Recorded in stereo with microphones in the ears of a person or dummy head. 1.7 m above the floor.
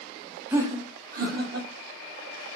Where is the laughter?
10° right (ahead or behind), 0.6 m; by 1.7 s 60° right (ahead or behind), 1.3 m.